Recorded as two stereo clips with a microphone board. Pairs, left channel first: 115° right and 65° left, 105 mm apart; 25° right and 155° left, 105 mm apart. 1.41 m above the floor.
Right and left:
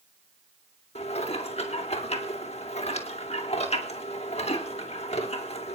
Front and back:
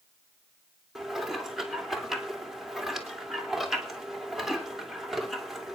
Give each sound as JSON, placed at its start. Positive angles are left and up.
{"t": 0.9, "sound": "dishes clattering", "azimuth_deg": -115, "distance_m": 3.0}